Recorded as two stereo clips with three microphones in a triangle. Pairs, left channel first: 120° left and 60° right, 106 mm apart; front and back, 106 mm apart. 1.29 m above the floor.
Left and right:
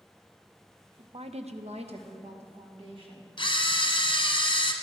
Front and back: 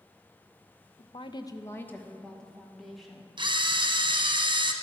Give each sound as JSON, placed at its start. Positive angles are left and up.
{"t": 1.0, "sound": "a woman speaking", "azimuth_deg": -20, "distance_m": 0.6}
{"t": 3.4, "sound": "a camera shutter", "azimuth_deg": 150, "distance_m": 0.8}